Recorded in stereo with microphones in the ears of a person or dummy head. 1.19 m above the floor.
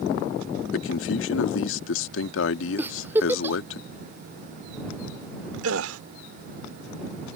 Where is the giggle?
10° right (ahead or behind).